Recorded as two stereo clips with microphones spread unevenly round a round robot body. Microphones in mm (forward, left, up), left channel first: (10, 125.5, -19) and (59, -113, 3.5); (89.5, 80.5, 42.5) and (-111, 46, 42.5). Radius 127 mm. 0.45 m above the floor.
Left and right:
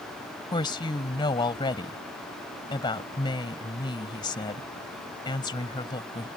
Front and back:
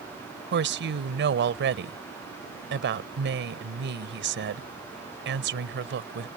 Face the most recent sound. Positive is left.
turn(degrees=175)